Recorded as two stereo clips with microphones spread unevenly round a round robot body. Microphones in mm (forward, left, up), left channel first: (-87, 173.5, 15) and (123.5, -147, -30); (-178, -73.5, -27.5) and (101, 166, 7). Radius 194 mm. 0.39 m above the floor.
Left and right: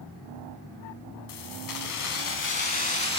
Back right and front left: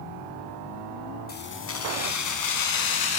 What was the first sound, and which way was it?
Keys jangling, 155° left.